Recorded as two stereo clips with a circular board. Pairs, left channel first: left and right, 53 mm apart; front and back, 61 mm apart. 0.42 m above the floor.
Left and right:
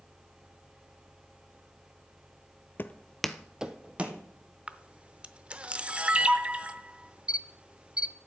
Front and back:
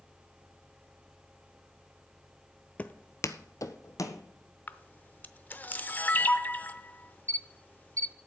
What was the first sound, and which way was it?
Footsteps, 60° left.